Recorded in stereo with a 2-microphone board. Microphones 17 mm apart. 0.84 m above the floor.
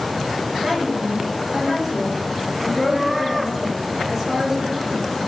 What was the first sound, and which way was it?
A woman speaking, 10° right (ahead or behind).